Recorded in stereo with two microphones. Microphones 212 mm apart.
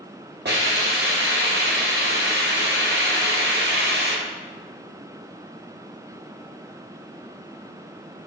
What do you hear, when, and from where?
0.5 s a hiss: 55° right (ahead or behind), 1.1 m